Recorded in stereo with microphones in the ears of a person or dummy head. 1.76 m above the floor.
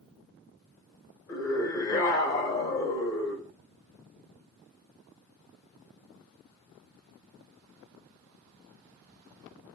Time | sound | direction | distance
1.3 | a scream | 20° left (ahead or behind) | 1.9 m